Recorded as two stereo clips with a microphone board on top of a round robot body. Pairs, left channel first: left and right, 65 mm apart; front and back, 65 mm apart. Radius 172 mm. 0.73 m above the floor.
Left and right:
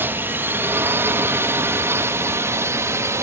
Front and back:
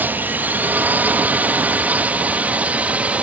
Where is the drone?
130° right; by 3.2 s 115° right.